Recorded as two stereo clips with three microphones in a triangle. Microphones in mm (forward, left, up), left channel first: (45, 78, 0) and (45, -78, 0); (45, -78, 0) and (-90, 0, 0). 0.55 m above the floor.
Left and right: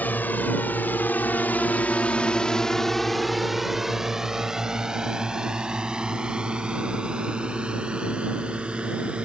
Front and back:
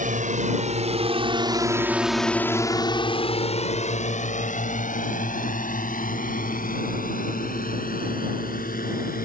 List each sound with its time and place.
0.0 s a drone: 165° left; by 9.3 s 5° right